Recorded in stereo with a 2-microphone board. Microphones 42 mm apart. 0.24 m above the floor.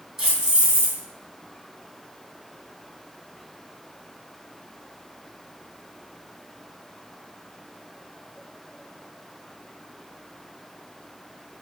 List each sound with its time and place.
0.2 s keys jangling: 15° right (ahead or behind), 1.4 m